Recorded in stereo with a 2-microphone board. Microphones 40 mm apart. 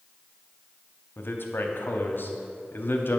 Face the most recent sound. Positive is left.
turn(degrees=55)  # may be behind; listen again after turning